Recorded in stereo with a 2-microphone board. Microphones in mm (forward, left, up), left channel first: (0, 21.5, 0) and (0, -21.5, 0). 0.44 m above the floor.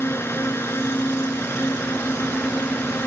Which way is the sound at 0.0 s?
65° left (ahead or behind).